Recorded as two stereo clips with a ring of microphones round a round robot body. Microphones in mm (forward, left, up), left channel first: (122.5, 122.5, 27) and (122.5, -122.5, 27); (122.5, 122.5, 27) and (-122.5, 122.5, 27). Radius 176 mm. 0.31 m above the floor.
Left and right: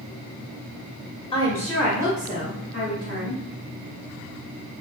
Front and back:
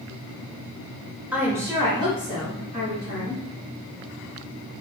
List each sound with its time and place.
1.3 s a woman speaking: 105° left, 0.8 m; by 3.4 s 120° right, 1.4 m